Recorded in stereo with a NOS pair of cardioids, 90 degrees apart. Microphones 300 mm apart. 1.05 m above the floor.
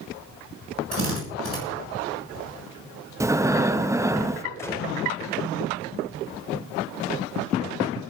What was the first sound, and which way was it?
A drill, 45° right.